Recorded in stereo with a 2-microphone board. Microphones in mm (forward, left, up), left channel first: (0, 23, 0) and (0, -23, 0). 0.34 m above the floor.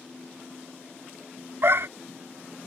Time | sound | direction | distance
1.6 | a dog barking | 60° right (ahead or behind) | ?